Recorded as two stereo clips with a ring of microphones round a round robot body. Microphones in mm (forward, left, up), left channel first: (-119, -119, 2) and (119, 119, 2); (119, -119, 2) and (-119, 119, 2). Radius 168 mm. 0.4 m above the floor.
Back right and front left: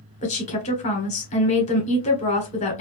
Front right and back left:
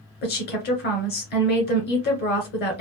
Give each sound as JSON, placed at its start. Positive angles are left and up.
{"t": 0.2, "sound": "a woman speaking", "azimuth_deg": -80, "distance_m": 1.2}